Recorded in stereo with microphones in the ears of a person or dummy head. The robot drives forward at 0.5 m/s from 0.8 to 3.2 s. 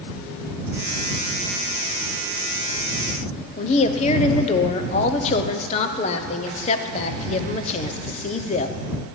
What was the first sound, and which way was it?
A woman speaking, 35° left (ahead or behind).